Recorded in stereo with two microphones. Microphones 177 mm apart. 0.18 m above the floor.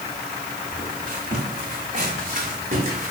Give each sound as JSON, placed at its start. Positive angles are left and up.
{"t": 0.7, "sound": "footsteps", "side_deg": -45, "distance_m": 5.0}